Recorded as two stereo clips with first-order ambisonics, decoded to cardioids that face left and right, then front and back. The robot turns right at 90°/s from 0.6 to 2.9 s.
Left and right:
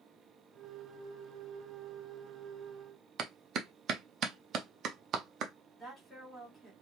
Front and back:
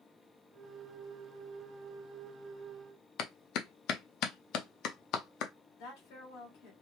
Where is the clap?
35° right, 0.7 m.